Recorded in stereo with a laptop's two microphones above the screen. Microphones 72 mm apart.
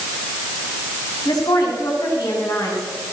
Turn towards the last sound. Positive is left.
turn(degrees=65)  # may be behind; listen again after turning